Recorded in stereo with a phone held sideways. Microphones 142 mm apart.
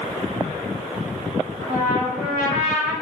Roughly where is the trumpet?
Left.